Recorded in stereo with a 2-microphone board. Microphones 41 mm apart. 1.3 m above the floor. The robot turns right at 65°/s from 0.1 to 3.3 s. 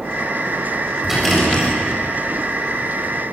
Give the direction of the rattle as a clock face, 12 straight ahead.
12 o'clock.